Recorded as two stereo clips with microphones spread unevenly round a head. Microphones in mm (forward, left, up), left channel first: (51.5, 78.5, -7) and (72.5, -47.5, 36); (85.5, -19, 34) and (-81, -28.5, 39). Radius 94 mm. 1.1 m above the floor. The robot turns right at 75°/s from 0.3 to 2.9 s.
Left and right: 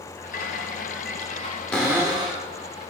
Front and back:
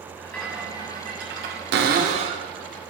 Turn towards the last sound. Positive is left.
turn(degrees=-75)